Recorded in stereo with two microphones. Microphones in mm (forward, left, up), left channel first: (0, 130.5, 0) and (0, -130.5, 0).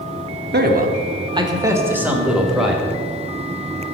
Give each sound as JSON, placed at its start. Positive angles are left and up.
{"t": 0.5, "sound": "a man speaking", "side_deg": -40, "distance_m": 0.8}